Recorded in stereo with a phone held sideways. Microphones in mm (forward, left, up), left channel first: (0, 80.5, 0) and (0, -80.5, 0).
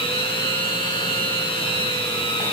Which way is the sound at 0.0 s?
35° left (ahead or behind).